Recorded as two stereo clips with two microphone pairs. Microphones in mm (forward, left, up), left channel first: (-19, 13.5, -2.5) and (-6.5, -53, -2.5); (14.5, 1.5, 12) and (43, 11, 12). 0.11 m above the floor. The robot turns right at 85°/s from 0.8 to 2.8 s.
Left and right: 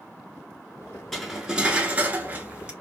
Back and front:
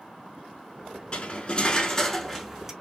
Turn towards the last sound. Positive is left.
turn(degrees=-25)